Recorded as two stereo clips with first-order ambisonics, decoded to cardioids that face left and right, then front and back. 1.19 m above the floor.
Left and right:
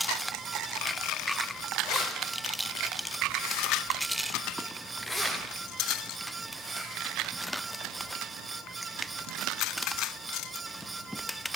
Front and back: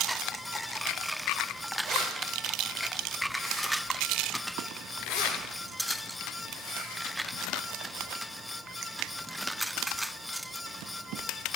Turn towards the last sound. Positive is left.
turn(degrees=-10)